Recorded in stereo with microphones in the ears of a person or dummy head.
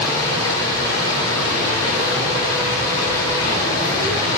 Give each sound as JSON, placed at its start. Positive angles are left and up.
{"t": 0.0, "sound": "running water", "side_deg": 20, "distance_m": 3.0}